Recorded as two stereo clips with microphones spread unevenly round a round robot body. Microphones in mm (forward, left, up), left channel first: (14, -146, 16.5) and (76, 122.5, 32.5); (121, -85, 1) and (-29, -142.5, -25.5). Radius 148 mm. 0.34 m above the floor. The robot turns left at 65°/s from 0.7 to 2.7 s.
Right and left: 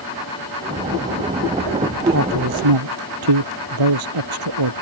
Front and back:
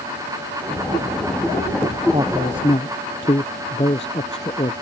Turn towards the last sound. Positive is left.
turn(degrees=95)